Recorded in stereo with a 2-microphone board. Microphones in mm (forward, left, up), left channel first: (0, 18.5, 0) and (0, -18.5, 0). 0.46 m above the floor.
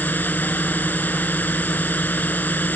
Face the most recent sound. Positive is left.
turn(degrees=50)  # may be behind; listen again after turning